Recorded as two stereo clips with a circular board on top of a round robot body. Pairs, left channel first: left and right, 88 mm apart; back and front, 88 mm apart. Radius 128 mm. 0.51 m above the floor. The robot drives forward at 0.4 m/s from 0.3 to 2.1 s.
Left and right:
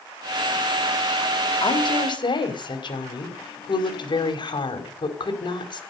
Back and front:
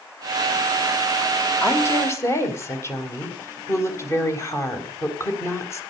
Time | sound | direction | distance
1.6 | a woman speaking | 120° left | 3.5 m